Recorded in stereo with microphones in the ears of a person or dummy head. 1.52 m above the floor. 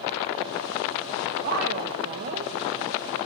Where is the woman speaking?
70° right (ahead or behind), 1.9 m; by 2.5 s 40° right (ahead or behind), 1.2 m.